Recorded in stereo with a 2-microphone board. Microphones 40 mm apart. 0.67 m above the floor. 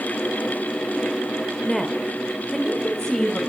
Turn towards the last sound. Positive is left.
turn(degrees=15)  # may be behind; listen again after turning